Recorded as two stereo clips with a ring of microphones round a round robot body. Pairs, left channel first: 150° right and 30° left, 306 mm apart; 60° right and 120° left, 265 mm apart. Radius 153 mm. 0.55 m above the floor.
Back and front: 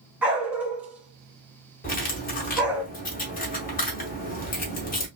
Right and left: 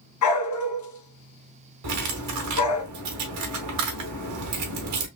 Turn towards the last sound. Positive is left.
turn(degrees=150)